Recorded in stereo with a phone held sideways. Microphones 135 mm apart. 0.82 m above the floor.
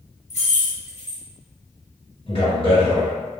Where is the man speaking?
45° left (ahead or behind), 1.8 m.